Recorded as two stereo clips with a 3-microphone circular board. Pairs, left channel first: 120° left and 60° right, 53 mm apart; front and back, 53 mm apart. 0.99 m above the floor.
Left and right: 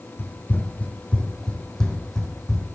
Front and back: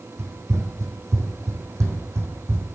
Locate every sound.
0.2 s running footsteps: 160° left, 2.5 m; by 2.7 s 145° right, 3.5 m